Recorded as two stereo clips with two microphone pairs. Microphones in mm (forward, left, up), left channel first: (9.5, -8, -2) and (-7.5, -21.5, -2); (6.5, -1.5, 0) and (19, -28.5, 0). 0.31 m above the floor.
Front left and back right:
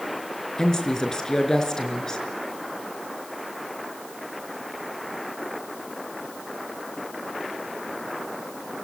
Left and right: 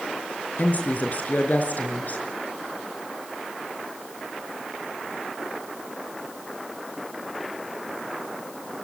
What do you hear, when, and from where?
0.6 s a woman speaking: 100° left, 5 m